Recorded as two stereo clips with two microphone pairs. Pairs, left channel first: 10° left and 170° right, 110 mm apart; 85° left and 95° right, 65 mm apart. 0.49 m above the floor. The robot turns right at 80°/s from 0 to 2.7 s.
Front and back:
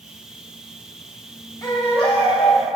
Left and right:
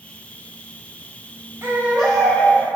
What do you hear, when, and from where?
1.6 s a baby crying: 45° right, 1.7 m; by 2.6 s 35° left, 1.7 m